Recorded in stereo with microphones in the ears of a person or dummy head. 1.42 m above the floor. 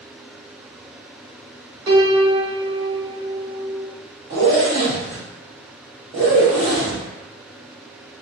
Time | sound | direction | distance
1.9 | a piano | 30° right (ahead or behind) | 0.9 m
4.3 | a zipper | 25° right (ahead or behind) | 0.9 m